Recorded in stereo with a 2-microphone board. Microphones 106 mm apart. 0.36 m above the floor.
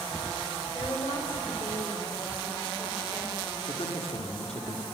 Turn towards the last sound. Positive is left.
turn(degrees=75)  # may be behind; listen again after turning